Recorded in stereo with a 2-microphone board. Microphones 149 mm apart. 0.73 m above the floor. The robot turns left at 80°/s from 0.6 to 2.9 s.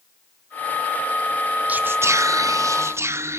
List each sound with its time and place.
1.7 s whispering: 10° right (ahead or behind), 0.6 m; by 3.4 s 15° right (ahead or behind), 0.6 m